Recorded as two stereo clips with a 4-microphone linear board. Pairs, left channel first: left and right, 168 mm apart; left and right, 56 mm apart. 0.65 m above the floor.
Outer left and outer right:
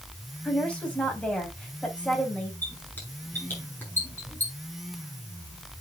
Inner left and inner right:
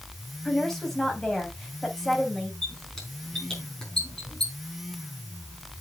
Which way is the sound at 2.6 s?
10° left (ahead or behind).